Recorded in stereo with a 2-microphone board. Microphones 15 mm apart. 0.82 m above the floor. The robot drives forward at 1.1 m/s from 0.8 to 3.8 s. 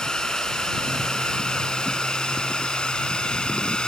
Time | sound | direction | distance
0.0 | a drone | 55° left (ahead or behind) | ?